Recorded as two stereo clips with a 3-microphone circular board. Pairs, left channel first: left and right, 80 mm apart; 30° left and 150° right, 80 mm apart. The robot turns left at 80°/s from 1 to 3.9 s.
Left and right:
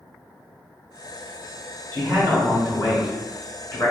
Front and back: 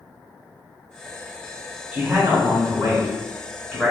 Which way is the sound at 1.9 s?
85° right.